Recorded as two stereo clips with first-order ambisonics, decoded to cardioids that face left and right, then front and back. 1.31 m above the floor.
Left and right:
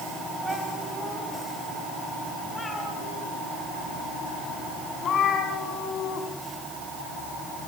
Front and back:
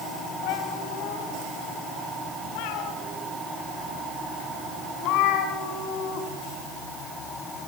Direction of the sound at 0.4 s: 15° right.